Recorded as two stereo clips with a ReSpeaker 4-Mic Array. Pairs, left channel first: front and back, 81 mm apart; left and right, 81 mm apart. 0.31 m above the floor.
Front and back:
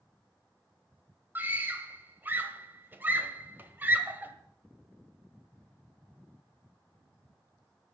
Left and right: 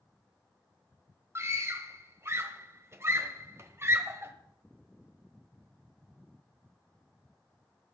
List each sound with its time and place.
1.4 s a scream: 125° right, 1.2 m